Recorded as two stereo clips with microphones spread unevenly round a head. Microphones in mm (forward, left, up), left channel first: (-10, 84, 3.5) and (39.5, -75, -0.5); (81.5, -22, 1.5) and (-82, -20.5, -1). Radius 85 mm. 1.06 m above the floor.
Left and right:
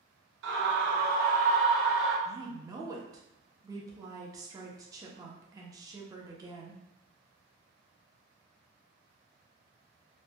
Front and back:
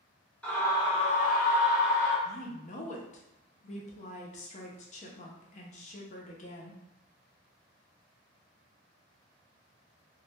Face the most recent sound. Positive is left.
turn(degrees=-15)